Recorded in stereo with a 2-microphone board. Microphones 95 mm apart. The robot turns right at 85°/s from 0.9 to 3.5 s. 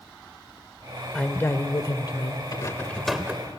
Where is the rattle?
130° left, 0.9 m; by 3.5 s 145° right, 0.9 m.